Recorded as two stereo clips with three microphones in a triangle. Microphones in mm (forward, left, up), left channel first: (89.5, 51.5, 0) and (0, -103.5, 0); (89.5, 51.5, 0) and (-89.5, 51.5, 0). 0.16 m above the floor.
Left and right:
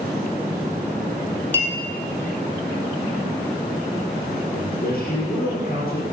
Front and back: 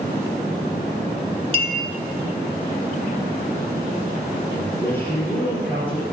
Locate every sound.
1.5 s a clink: 135° left, 1.5 m
4.5 s a man speaking: 75° left, 3.5 m